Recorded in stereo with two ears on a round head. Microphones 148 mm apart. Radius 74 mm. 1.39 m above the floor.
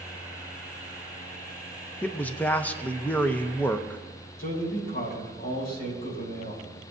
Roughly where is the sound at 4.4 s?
Left.